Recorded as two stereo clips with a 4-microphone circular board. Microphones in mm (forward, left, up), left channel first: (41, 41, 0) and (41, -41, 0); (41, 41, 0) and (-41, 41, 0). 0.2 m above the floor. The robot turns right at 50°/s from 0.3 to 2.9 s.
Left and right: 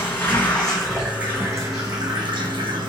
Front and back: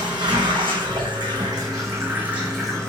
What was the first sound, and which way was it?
Running water, 150° left.